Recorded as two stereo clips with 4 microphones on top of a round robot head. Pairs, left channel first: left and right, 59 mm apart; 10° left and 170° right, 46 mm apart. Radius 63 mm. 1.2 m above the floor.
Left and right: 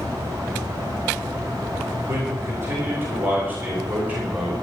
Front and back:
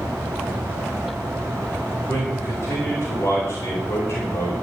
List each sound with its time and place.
2.1 s a man speaking: 40° right, 5 m; by 4.5 s 25° right, 5.5 m